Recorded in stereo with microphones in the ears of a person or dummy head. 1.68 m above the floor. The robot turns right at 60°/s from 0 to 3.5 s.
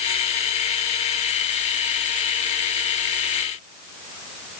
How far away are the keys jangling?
No keys jangling in this recording.